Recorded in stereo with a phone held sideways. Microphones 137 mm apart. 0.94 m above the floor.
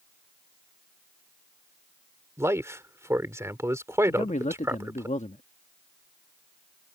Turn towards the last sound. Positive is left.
turn(degrees=60)  # may be behind; listen again after turning